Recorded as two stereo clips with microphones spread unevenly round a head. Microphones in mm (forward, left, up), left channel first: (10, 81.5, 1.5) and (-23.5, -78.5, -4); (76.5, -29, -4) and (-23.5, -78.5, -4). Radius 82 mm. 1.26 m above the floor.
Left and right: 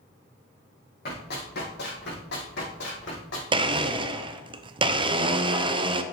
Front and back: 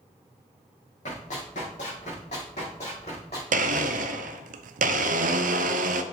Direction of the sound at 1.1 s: 45° left.